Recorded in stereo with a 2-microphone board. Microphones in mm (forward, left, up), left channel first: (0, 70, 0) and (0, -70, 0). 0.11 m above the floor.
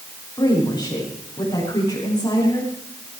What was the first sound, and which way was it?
A woman speaking, 30° left (ahead or behind).